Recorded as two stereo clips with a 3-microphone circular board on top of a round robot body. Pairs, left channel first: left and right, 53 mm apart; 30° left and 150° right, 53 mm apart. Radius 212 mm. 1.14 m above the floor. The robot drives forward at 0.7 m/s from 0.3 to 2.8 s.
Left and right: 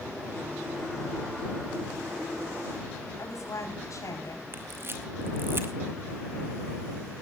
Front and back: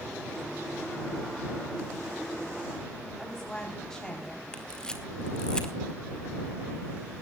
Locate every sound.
3.2 s a woman speaking: 110° left, 4 m
4.5 s a camera shutter: 45° right, 2.5 m